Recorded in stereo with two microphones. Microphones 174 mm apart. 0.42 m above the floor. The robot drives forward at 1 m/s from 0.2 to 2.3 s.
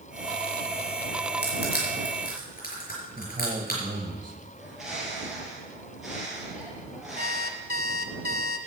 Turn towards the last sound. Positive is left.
turn(degrees=-60)  # may be behind; listen again after turning